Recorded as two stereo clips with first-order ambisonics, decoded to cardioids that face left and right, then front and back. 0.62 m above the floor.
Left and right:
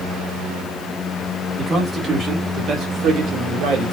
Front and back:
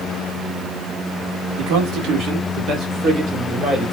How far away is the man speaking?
About 1.8 m.